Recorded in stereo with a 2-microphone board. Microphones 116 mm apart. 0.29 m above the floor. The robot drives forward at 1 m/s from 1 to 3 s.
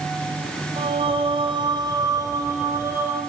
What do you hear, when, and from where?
0.8 s singing: 50° right (ahead or behind), 1.2 m; by 3.2 s 20° right (ahead or behind), 2.5 m